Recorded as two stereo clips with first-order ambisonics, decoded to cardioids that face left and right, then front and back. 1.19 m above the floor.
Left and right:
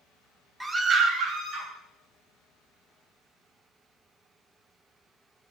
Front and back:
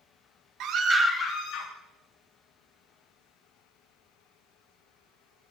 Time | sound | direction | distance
0.6 | a scream | 170° right | 0.8 m